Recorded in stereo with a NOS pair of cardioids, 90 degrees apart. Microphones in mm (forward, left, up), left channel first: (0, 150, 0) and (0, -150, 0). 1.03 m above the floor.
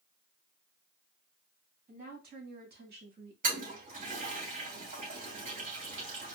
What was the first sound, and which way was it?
A woman speaking, 30° right.